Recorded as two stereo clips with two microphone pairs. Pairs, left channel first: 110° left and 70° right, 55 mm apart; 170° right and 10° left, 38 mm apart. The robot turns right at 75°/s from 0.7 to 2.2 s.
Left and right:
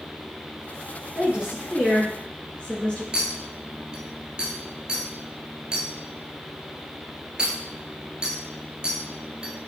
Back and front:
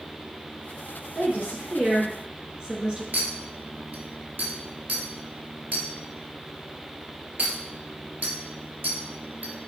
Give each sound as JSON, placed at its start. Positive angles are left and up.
{"t": 1.1, "sound": "a woman speaking", "azimuth_deg": -30, "distance_m": 1.9}
{"t": 3.1, "sound": "a clink", "azimuth_deg": 0, "distance_m": 1.4}